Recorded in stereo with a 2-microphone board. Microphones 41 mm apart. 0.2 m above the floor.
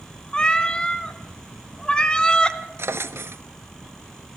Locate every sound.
0.3 s a cat meowing: 20° left (ahead or behind), 0.9 m
2.8 s a drawer: 75° right (ahead or behind), 0.7 m